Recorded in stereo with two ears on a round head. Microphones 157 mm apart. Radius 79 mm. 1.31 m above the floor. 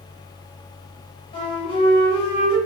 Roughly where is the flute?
Left.